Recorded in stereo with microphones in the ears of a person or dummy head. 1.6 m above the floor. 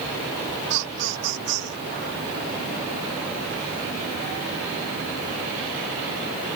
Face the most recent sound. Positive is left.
turn(degrees=-55)  # may be behind; listen again after turning